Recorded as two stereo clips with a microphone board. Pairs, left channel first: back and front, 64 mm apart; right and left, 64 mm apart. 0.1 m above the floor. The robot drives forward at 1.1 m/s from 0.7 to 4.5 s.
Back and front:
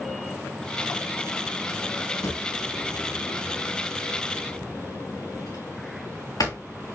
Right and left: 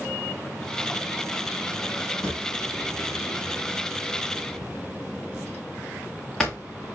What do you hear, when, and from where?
2.2 s a drawer: 165° right, 2.5 m; by 6.6 s 170° right, 5 m